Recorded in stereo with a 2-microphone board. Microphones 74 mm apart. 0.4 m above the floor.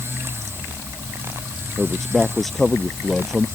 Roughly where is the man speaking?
Centre.